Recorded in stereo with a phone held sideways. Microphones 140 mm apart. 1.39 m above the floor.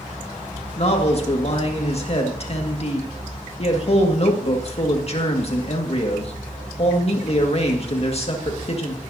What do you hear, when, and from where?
0.8 s a man speaking: 45° left (ahead or behind), 1.8 m